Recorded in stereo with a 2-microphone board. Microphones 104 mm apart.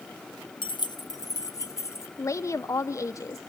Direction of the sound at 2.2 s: 30° left (ahead or behind).